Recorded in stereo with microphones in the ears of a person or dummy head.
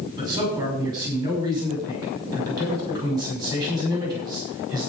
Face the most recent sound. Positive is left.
turn(degrees=-25)  # may be behind; listen again after turning